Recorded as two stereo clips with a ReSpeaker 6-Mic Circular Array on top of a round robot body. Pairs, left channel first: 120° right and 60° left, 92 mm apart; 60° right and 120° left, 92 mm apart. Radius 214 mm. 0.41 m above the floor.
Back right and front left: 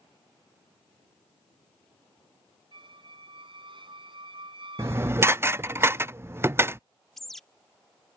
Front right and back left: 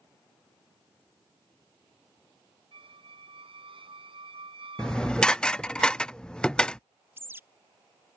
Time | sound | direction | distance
2.7 | a squeak | 95° left | ?
4.8 | dishes clattering | 15° left | ?
7.2 | a bird | 155° left | ?